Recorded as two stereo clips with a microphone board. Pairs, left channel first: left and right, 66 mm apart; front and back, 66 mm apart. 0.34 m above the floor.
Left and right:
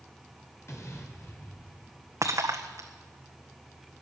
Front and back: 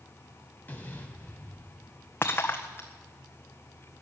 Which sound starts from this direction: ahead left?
An explosion, at 0.7 s.